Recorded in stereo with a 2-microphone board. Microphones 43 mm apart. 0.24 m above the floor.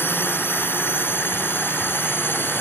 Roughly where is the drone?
Left.